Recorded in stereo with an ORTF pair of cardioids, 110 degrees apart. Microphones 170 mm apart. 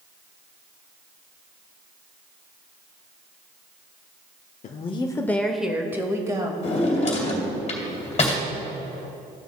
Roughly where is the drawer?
Ahead left.